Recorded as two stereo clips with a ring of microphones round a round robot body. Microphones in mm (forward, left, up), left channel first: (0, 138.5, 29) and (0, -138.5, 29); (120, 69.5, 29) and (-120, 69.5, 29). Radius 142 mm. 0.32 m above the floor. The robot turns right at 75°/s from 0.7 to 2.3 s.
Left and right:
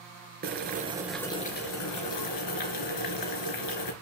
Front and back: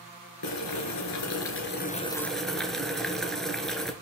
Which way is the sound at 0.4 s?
30° right.